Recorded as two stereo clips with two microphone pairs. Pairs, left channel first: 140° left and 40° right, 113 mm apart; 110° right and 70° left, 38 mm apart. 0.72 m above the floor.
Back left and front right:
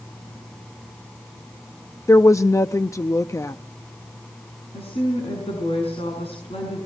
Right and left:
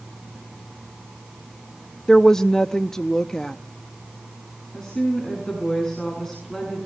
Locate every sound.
2.1 s a woman speaking: 175° right, 0.6 m
4.7 s a woman speaking: 175° left, 6.5 m